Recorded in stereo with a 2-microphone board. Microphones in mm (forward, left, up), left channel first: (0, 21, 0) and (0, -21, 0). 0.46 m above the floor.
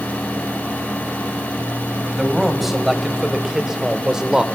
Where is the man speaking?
5° right (ahead or behind), 2.5 m; by 4.5 s 20° right (ahead or behind), 1.3 m.